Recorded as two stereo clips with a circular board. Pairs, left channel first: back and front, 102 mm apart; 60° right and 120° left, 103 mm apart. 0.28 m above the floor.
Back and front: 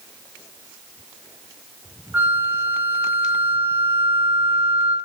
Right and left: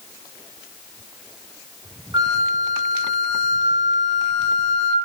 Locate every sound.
2.1 s a flute: 70° left, 1.4 m